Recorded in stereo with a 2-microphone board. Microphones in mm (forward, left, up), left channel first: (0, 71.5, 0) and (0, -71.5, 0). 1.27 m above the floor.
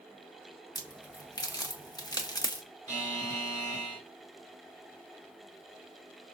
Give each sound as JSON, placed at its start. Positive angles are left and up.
{"t": 0.8, "sound": "a crack", "side_deg": 25, "distance_m": 0.7}
{"t": 2.9, "sound": "a buzzer", "side_deg": -55, "distance_m": 3.5}